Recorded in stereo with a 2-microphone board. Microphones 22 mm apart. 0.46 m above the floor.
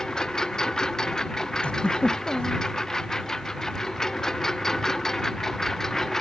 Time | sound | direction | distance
0.0 | a lawn mower | 30° left (ahead or behind) | ?
1.6 | a giggle | 55° left (ahead or behind) | ?